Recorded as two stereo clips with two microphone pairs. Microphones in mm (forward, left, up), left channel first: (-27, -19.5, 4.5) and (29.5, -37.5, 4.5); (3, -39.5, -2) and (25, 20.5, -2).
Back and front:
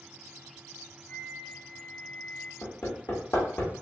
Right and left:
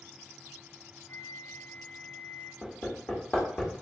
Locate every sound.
1.1 s a flute: 145° right, 0.8 m
2.6 s hammering: 170° right, 1.6 m